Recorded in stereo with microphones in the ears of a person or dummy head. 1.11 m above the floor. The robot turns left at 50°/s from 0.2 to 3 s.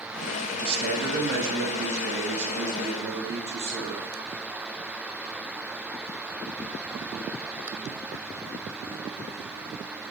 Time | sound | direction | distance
0.6 | a man speaking | 30° right | 1.8 m